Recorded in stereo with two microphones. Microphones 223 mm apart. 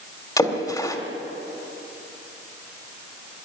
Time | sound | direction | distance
0.4 | a splash | 15° left (ahead or behind) | 2 m